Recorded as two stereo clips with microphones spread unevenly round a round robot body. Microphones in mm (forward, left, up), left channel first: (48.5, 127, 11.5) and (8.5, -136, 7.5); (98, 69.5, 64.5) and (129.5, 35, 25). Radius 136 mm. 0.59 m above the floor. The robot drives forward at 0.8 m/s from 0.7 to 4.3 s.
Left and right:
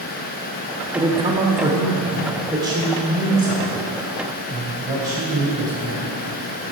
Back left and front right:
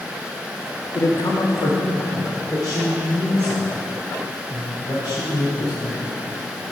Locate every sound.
0.9 s a man speaking: 135° right, 0.8 m; by 6.2 s 175° right, 3 m